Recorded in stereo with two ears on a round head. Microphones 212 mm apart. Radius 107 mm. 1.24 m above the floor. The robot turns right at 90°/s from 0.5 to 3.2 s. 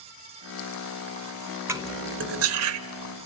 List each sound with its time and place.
1.7 s cutlery clinking: 10° right (ahead or behind), 0.9 m; by 2.8 s 55° right (ahead or behind), 0.9 m